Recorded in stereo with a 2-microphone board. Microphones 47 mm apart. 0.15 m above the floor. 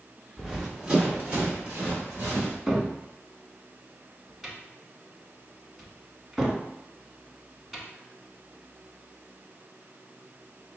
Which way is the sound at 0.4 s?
5° right (ahead or behind).